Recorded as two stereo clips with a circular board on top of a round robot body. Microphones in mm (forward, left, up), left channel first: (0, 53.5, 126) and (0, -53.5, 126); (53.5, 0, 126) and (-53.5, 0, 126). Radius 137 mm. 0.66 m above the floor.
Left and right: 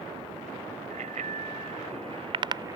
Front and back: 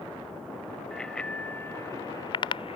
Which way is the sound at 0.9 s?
85° right.